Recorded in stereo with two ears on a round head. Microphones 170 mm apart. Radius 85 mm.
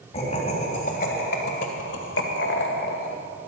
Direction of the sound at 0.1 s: 35° left (ahead or behind).